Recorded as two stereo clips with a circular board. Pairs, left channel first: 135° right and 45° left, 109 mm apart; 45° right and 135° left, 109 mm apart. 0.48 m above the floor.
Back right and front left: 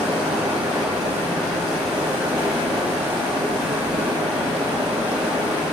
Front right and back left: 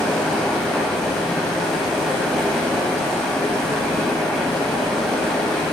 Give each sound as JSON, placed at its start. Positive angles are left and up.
{"t": 0.0, "sound": "running water", "azimuth_deg": 40, "distance_m": 0.9}